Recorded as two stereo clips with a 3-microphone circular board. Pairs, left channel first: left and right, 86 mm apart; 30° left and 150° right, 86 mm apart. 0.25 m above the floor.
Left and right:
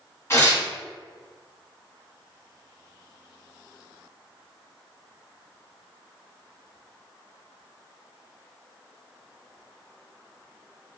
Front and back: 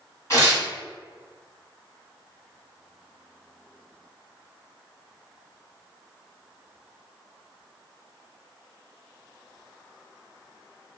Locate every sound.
0.3 s tearing paper: 55° left, 2.0 m